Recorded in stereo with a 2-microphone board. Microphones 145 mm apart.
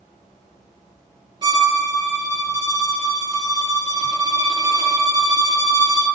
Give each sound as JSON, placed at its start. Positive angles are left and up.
{"t": 1.4, "sound": "a violin", "side_deg": -30, "distance_m": 1.2}